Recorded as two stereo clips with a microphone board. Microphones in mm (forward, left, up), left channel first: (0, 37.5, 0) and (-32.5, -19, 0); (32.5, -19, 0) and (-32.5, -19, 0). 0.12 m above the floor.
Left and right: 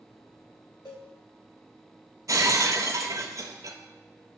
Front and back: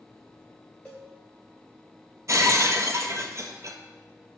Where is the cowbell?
75° left, 3 m.